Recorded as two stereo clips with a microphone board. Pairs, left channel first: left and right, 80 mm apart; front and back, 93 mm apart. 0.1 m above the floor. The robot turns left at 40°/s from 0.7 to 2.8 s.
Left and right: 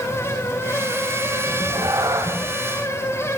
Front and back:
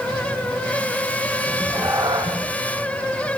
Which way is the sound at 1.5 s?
110° right.